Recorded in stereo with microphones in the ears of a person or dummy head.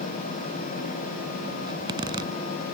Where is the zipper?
25° right (ahead or behind).